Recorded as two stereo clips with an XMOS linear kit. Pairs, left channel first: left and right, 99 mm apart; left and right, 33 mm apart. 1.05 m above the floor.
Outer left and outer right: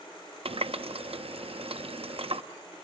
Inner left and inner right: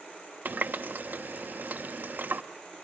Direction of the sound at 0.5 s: 70° right (ahead or behind).